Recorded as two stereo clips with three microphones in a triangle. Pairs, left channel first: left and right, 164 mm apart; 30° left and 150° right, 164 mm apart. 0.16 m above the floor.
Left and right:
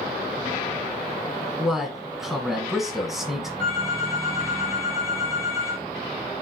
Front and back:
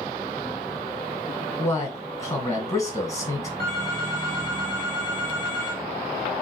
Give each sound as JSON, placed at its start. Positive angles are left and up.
{"t": 1.6, "sound": "a man speaking", "azimuth_deg": -5, "distance_m": 1.2}
{"t": 3.6, "sound": "a phone ringing", "azimuth_deg": -95, "distance_m": 3.5}